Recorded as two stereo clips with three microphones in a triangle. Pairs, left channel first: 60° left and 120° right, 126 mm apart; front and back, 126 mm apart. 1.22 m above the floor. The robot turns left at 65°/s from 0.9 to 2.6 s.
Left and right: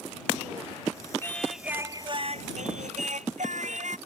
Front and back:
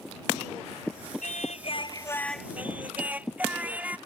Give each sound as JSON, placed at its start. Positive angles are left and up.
{"t": 1.2, "sound": "singing", "azimuth_deg": -10}